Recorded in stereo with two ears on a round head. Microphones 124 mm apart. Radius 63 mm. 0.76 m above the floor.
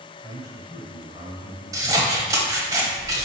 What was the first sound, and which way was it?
A man speaking, 15° right (ahead or behind).